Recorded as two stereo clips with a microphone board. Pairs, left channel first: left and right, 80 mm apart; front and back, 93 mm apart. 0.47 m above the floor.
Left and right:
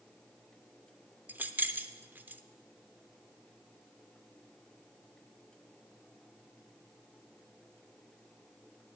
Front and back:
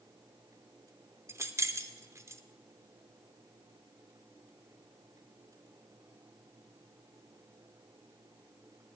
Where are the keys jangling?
145° right, 0.6 m.